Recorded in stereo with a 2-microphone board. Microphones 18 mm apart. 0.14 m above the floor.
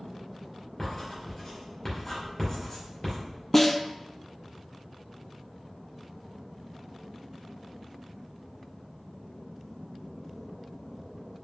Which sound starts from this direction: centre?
A snare drum, at 3.5 s.